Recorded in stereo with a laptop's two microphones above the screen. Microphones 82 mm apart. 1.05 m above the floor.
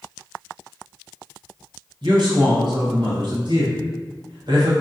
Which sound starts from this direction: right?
A man speaking, at 2.0 s.